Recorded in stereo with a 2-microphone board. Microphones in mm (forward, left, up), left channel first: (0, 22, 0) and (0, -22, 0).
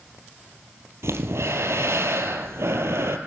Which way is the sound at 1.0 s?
85° right.